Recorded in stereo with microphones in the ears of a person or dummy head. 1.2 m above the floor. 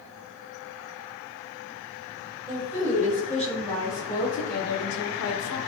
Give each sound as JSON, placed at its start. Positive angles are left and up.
{"t": 2.5, "sound": "a woman speaking", "side_deg": 0, "distance_m": 1.3}